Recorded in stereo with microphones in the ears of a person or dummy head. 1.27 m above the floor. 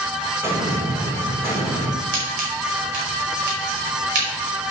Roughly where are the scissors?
Right.